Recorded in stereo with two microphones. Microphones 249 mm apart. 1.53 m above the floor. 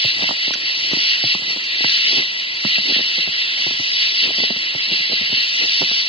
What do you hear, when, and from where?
0.0 s an insect: 25° left (ahead or behind)